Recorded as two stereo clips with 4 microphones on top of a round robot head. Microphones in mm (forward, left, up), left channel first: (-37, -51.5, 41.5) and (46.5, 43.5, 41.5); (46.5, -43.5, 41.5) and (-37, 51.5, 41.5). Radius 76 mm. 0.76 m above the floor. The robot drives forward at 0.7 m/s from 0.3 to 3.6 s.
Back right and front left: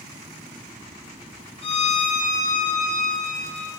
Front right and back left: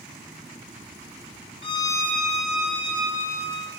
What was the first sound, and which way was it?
A violin, 90° right.